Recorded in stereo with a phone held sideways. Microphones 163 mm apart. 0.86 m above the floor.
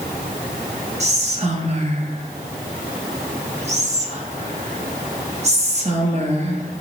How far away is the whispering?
About 0.7 m.